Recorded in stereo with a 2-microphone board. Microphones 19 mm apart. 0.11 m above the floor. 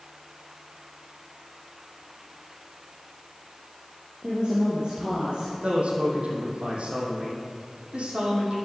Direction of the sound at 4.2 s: 45° right (ahead or behind).